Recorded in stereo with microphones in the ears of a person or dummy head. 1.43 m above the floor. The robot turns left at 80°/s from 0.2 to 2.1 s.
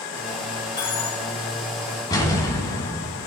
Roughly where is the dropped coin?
Behind.